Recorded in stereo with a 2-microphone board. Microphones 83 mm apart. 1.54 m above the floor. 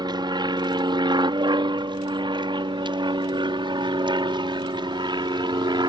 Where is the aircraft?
60° right (ahead or behind).